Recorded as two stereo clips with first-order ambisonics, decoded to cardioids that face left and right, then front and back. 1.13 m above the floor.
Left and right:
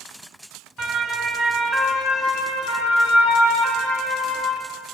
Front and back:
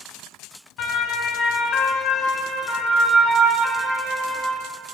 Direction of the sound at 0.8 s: 20° right.